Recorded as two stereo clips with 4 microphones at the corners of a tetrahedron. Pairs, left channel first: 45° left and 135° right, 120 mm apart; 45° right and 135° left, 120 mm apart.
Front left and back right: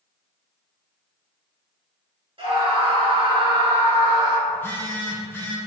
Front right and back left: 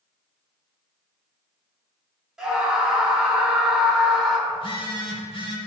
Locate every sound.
2.4 s a scream: 140° right, 1.7 m
4.5 s a phone buzzing: 20° right, 1.2 m